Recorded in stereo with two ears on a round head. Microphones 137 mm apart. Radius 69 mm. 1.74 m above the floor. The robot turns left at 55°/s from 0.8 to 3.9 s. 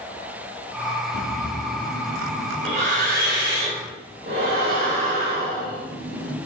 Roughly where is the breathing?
Left.